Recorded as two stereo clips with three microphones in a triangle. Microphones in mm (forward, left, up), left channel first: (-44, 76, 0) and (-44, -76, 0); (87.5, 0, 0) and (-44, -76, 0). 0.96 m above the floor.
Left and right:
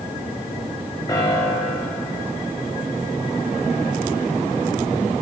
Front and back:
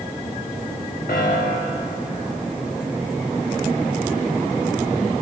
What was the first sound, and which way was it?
A piano, 25° left.